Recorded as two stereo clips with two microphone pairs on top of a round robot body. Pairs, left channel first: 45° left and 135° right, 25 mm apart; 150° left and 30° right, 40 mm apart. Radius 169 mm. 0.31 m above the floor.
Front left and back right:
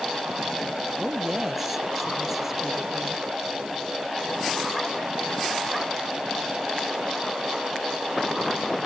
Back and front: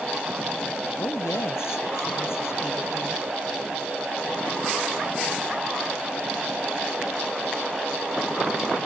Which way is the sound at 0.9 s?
145° left.